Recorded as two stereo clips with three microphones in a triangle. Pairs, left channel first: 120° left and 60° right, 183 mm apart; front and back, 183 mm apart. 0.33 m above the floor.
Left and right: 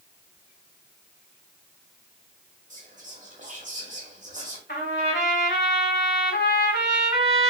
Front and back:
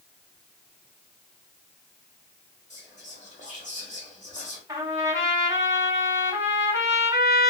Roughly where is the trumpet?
Left.